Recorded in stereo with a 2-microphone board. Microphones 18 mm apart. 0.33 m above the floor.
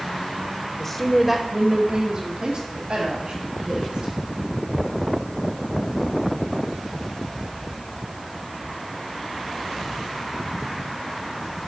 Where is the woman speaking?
15° left (ahead or behind), 0.9 m; by 4.1 s 70° right (ahead or behind), 2.5 m.